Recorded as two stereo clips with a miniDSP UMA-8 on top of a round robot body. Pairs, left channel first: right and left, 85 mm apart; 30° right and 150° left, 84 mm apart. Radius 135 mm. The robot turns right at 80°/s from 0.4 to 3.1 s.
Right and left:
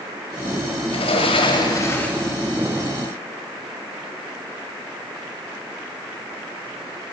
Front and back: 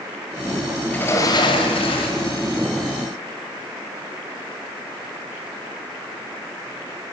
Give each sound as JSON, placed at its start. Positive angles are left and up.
{"t": 0.9, "sound": "a sliding door", "azimuth_deg": -110, "distance_m": 1.6}